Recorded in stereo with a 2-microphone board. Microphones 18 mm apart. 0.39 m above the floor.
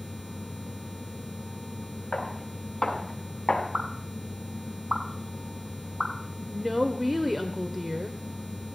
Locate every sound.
2.1 s footsteps: 45° left (ahead or behind), 7 m
3.7 s a pop: 70° right (ahead or behind), 3 m
6.5 s a woman speaking: 15° right (ahead or behind), 1.2 m